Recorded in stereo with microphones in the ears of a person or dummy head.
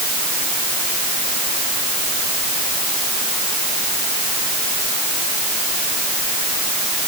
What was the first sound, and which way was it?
Only background noise.